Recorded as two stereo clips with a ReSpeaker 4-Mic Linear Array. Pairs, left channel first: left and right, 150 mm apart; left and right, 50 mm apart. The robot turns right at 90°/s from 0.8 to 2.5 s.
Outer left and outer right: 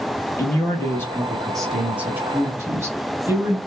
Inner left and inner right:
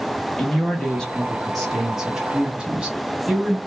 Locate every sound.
0.4 s a man speaking: 20° left (ahead or behind), 1.0 m; by 3.6 s 20° right (ahead or behind), 1.0 m